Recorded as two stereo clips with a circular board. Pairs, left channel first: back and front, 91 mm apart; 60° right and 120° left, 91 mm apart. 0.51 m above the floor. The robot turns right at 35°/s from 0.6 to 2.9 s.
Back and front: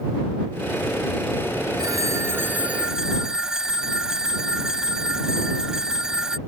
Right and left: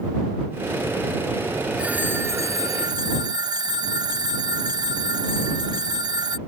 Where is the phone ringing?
45° left; by 6.4 s 80° left.